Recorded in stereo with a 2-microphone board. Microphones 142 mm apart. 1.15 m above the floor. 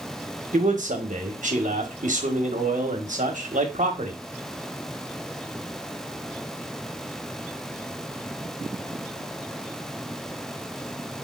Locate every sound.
0.5 s a man speaking: 60° right (ahead or behind), 1.2 m